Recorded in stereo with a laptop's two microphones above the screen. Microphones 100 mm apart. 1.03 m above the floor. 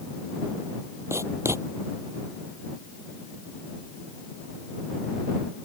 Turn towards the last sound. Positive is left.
turn(degrees=-25)  # may be behind; listen again after turning